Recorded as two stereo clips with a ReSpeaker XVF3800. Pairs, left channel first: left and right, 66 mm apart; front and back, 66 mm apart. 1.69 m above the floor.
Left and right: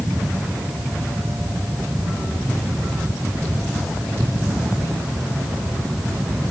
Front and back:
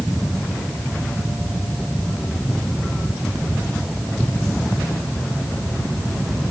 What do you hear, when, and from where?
Only background noise.